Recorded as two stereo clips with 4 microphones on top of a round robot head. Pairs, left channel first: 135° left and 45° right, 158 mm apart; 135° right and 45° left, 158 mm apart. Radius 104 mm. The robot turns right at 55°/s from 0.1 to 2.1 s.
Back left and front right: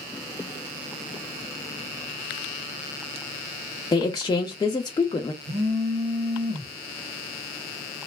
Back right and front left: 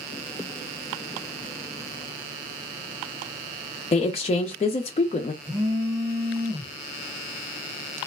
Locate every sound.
3.9 s a woman speaking: 170° right, 0.5 m
5.4 s a phone buzzing: 15° right, 1.3 m